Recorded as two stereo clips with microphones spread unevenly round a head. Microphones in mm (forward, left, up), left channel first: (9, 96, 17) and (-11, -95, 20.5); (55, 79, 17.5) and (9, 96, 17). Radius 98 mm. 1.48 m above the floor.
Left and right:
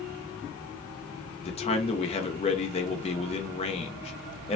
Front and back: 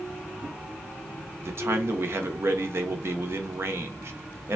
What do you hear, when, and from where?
1.4 s a man speaking: 140° left, 0.6 m